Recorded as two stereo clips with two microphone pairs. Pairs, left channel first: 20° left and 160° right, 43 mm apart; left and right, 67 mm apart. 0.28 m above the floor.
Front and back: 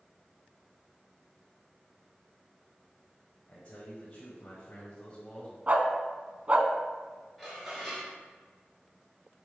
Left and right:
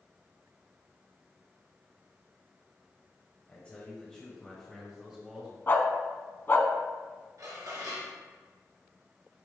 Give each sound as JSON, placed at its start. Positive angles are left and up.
{"t": 3.5, "sound": "a man speaking", "azimuth_deg": 35, "distance_m": 1.8}
{"t": 5.7, "sound": "a dog barking", "azimuth_deg": 145, "distance_m": 0.7}
{"t": 7.4, "sound": "dishes clattering", "azimuth_deg": -65, "distance_m": 2.5}